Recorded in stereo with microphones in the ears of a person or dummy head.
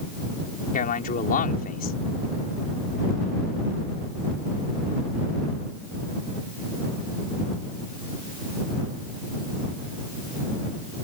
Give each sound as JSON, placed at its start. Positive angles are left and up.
{"t": 0.7, "sound": "a man speaking", "side_deg": 45}